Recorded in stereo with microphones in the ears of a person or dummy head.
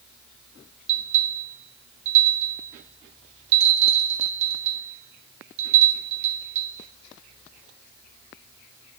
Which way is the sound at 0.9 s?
40° right (ahead or behind).